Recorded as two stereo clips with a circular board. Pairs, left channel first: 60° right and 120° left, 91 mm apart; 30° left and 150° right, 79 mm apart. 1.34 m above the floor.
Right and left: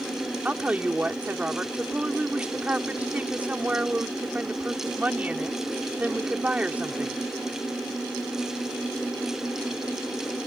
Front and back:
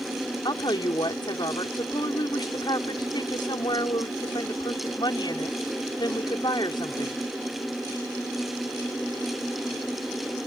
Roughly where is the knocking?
I don't hear knocking.